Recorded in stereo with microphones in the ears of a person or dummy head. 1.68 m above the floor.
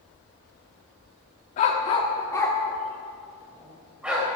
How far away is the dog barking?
About 1.5 m.